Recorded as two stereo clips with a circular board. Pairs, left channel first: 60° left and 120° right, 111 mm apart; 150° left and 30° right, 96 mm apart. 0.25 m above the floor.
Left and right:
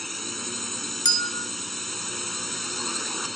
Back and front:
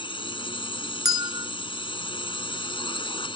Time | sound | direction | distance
0.0 | a drone | 150° left | ?
1.1 | a bell | 15° left | ?